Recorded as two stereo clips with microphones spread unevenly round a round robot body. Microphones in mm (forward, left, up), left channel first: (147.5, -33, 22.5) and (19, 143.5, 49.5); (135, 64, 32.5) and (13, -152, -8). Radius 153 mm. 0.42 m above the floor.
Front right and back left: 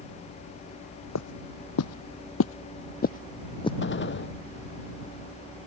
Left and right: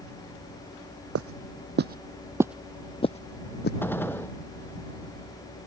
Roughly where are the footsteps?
Right.